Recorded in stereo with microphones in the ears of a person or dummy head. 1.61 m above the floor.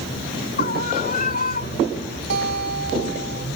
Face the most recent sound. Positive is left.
turn(degrees=-55)  # may be behind; listen again after turning